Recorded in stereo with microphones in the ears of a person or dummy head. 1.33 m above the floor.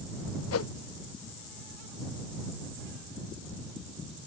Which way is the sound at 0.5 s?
75° left (ahead or behind).